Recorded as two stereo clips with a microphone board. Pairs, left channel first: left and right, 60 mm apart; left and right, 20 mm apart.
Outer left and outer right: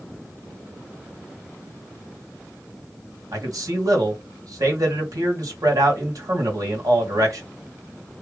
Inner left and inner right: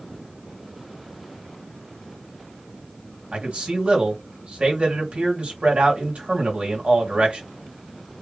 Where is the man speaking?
85° right, 1.9 m.